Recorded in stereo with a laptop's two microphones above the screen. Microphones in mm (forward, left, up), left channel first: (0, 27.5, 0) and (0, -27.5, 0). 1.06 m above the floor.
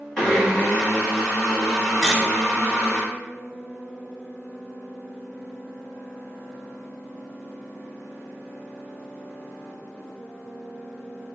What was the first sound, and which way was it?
A blender, 15° left (ahead or behind).